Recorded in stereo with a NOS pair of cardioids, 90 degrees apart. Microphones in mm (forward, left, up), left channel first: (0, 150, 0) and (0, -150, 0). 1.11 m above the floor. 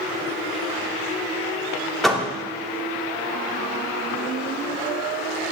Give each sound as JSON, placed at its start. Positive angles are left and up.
{"t": 2.0, "sound": "a door slam", "azimuth_deg": 0, "distance_m": 2.0}